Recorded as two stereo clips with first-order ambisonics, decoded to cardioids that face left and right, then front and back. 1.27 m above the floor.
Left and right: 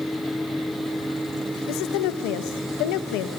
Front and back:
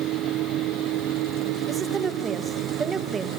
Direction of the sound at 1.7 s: 110° left.